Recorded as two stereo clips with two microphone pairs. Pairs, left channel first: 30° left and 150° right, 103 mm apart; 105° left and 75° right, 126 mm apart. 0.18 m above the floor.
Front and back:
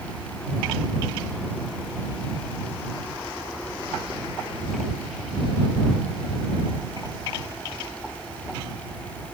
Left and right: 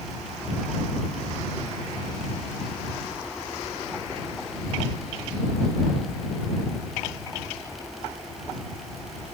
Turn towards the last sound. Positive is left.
No sound to turn to.